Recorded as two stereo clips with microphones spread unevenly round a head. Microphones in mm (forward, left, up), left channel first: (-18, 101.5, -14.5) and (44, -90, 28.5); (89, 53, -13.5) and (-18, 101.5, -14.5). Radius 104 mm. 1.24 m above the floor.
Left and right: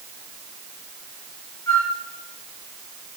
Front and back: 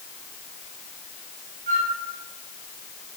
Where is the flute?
175° right, 8 m.